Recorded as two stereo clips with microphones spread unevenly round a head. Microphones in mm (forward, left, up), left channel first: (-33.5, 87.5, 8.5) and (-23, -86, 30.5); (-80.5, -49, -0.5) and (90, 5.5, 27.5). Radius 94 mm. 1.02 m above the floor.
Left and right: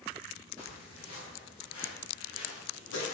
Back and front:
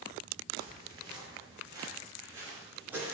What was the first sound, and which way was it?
Footsteps, 85° left.